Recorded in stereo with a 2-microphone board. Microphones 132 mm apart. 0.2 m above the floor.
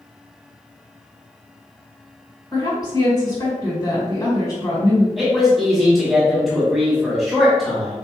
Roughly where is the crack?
I don't hear a crack.